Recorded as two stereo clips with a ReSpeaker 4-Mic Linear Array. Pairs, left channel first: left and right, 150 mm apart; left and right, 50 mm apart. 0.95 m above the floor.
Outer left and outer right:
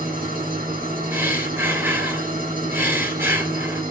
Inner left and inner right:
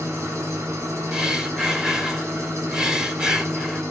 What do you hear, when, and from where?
0.0 s an engine running: 75° right (ahead or behind), 5.5 m
1.1 s breathing: 15° right (ahead or behind), 2.5 m